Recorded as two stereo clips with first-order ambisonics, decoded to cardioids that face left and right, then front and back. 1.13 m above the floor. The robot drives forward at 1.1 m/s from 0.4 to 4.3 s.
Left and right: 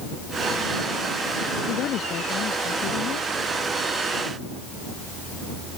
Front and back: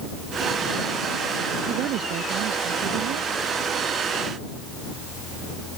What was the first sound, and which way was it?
A woman speaking, 140° left.